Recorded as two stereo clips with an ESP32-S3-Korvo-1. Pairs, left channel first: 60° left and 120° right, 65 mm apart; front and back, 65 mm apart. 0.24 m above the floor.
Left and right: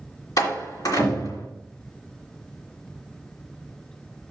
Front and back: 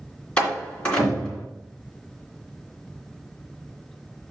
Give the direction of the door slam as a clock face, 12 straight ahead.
10 o'clock.